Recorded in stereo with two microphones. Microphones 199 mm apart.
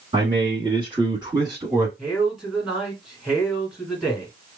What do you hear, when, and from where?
0.1 s a man speaking: 25° right (ahead or behind), 1.3 m; by 1.9 s 15° right (ahead or behind), 1.1 m
2.0 s a man speaking: centre (ahead or behind), 1.9 m